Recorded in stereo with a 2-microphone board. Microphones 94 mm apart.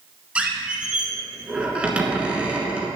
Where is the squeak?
15° right (ahead or behind), 1.4 m.